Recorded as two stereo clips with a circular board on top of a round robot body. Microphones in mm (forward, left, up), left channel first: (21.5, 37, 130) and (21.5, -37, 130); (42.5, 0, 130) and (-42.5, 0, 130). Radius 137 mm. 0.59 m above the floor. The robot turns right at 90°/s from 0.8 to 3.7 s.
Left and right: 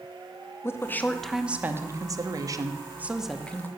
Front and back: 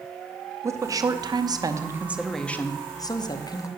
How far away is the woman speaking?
About 1.0 m.